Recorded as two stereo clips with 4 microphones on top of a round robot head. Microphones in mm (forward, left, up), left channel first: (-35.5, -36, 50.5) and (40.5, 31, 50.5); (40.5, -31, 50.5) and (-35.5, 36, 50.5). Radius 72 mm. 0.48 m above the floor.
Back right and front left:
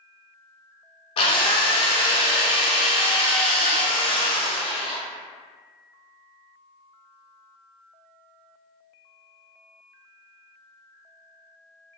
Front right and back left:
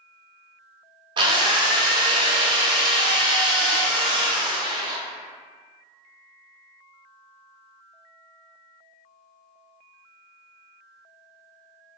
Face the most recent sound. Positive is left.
turn(degrees=-175)